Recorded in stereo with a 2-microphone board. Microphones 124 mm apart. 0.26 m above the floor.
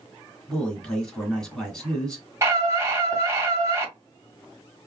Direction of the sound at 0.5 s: 5° left (ahead or behind).